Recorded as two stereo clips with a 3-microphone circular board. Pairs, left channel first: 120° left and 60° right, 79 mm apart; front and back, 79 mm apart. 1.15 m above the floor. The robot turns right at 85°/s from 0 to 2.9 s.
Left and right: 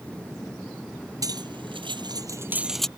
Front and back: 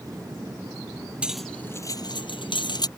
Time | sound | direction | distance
1.2 | cutlery clinking | 105° right | ?